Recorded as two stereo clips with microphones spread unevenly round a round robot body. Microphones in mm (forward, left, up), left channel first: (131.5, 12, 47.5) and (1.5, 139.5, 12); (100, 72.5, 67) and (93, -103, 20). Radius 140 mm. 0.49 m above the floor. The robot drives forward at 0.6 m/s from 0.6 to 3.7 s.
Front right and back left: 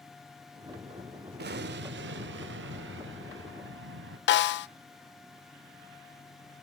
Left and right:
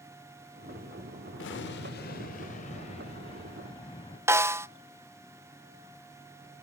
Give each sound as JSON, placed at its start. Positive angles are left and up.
{"t": 1.4, "sound": "an explosion", "azimuth_deg": 120, "distance_m": 0.7}
{"t": 4.3, "sound": "a snare drum", "azimuth_deg": -15, "distance_m": 0.6}